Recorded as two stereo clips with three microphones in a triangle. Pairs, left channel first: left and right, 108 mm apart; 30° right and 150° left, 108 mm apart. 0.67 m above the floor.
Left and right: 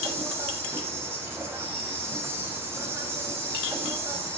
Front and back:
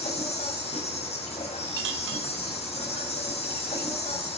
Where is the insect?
20° right, 6.5 m.